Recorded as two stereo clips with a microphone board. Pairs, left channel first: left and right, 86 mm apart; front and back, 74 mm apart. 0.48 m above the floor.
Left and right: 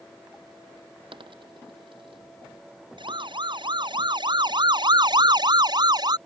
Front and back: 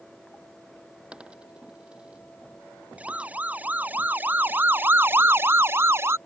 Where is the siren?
110° right; by 6.2 s 125° right.